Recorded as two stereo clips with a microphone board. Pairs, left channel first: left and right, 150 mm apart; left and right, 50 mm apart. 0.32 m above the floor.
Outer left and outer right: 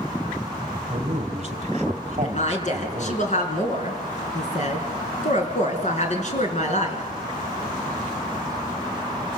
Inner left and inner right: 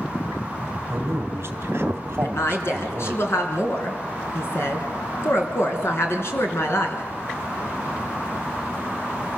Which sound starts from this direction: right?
A man speaking, at 0.9 s.